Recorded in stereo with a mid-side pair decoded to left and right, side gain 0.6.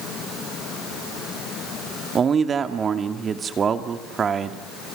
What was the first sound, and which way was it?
A man speaking, 35° right.